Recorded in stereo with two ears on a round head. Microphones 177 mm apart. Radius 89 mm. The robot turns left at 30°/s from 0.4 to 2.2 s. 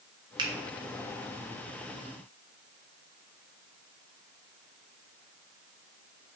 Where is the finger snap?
25° right (ahead or behind), 0.6 m; by 0.5 s 20° right (ahead or behind), 0.6 m.